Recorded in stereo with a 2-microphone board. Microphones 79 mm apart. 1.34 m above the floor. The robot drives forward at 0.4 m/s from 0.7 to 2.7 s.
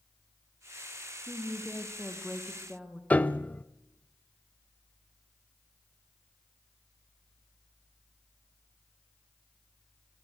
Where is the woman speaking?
5° right (ahead or behind), 1.1 m.